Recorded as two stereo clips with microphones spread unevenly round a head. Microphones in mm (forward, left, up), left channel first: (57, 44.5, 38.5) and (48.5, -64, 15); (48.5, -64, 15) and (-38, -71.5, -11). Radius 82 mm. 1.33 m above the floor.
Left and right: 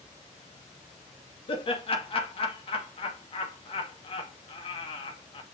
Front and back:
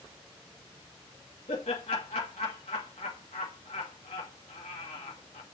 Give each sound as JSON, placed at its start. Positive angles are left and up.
{"t": 1.5, "sound": "laughter", "azimuth_deg": 45, "distance_m": 2.0}